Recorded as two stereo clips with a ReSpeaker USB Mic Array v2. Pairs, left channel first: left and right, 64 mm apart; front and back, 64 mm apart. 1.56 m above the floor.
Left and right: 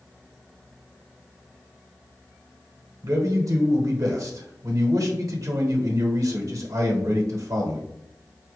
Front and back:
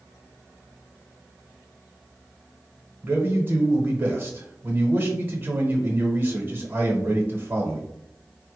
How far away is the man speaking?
About 0.9 m.